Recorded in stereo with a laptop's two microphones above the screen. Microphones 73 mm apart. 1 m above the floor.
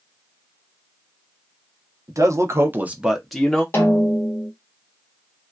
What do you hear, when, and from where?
2.1 s a man speaking: 50° right (ahead or behind), 0.8 m; by 3.6 s 10° left (ahead or behind), 0.9 m
3.7 s a snare drum: 30° left (ahead or behind), 0.8 m